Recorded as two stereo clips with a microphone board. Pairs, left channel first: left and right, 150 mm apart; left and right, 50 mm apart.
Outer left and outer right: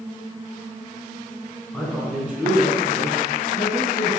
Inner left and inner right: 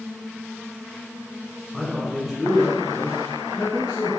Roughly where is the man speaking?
Centre.